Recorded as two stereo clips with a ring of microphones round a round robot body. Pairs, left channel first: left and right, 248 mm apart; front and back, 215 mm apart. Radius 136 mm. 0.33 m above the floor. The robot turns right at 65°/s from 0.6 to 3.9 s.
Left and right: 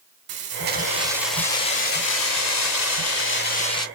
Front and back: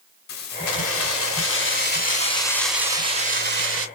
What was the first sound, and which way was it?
Keys jangling, 45° right.